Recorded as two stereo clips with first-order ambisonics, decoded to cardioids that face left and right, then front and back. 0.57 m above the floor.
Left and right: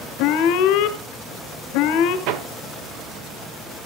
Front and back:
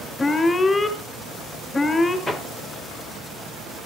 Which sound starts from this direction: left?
An alarm, at 0.2 s.